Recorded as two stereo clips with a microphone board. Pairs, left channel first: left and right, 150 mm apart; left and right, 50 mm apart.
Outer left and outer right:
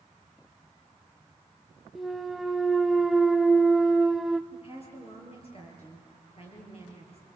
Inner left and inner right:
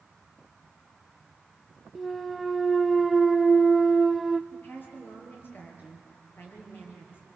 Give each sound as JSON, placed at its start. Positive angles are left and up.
{"t": 1.9, "sound": "a clunk", "side_deg": 0, "distance_m": 0.6}
{"t": 4.5, "sound": "a woman speaking", "side_deg": 45, "distance_m": 7.0}